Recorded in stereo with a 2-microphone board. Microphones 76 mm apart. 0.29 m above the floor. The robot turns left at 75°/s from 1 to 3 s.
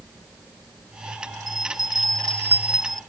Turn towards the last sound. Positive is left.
turn(degrees=175)